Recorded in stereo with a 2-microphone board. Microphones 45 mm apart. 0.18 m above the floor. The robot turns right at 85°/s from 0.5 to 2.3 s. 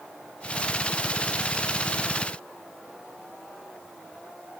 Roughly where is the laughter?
I don't hear laughter.